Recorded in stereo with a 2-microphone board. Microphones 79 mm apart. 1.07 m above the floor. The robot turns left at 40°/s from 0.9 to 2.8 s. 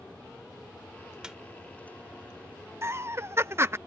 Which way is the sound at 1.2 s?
10° right (ahead or behind).